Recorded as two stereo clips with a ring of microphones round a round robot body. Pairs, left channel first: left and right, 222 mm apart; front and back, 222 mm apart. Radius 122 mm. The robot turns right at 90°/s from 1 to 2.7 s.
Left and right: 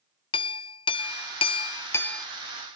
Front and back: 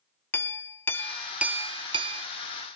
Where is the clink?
65° left, 0.5 m; by 2.3 s straight behind, 0.5 m.